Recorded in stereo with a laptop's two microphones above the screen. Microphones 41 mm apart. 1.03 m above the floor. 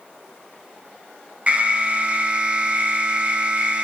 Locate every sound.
1.5 s an alarm: 30° right (ahead or behind), 0.7 m